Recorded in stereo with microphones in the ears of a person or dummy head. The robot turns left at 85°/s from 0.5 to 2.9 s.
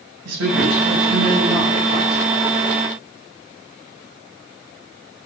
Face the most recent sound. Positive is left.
turn(degrees=40)